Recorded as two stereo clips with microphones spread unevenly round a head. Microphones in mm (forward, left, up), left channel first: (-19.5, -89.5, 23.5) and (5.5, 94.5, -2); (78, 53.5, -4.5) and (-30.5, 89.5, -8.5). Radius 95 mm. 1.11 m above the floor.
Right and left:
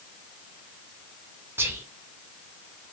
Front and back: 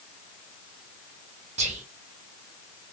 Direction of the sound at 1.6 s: 155° left.